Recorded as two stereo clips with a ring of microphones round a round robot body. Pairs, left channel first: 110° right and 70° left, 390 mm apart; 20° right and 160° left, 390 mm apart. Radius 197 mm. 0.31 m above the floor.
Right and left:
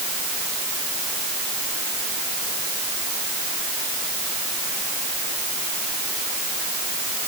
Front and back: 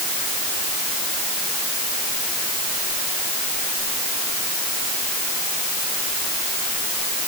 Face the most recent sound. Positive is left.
No sound to turn to.